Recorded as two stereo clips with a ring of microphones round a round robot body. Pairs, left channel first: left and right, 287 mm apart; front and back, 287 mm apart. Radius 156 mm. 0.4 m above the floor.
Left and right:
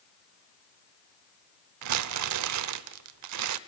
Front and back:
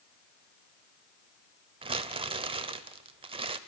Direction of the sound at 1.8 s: 110° right.